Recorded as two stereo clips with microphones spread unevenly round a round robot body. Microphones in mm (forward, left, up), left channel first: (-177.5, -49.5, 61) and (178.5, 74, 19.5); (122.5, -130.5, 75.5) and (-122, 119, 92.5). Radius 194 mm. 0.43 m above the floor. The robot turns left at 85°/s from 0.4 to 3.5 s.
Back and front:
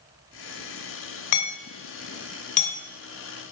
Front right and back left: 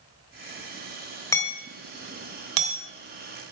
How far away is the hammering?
About 3 m.